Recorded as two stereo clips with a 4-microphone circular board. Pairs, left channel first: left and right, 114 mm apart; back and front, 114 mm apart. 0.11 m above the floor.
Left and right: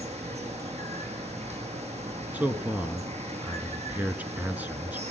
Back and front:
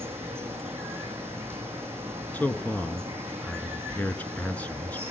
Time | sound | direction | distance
0.0 | running water | 70° right | 3.5 m
2.3 | a man speaking | 130° right | 1.1 m